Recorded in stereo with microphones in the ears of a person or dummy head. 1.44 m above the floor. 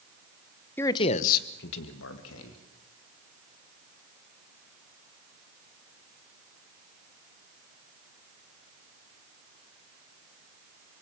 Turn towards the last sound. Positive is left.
turn(degrees=90)